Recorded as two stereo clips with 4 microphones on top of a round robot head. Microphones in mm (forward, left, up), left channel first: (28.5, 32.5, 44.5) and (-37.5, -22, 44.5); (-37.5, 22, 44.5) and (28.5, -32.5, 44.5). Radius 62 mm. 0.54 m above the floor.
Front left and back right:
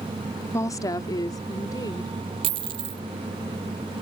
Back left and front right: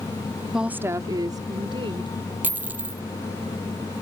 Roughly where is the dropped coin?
Right.